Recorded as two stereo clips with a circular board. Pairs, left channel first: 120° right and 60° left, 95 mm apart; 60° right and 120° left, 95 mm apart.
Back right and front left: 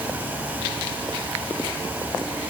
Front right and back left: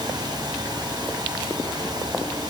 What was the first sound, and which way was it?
Only background noise.